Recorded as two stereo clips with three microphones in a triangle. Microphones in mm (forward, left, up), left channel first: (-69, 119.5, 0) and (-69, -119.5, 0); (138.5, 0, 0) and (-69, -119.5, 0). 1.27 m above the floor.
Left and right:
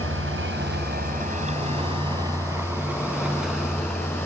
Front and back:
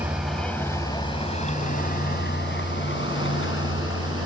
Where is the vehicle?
65° right; by 4.3 s 5° left.